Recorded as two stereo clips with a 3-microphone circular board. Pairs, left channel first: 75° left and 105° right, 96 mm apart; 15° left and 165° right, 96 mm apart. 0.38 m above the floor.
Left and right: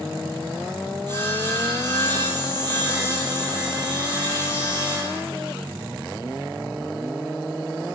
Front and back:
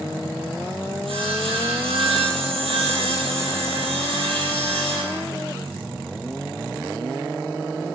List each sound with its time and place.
1.1 s sawing: 145° right, 6 m